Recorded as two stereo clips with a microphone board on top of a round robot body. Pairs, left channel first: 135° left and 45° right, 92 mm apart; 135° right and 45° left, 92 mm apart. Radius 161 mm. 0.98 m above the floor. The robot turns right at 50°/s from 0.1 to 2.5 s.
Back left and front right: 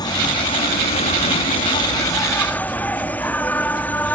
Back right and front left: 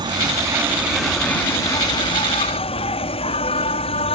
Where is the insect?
90° left; by 4.1 s 150° right.